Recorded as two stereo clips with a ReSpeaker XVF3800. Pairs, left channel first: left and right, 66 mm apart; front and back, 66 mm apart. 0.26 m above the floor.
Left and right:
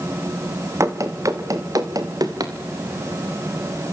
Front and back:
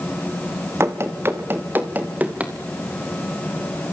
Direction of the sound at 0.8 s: 130° right.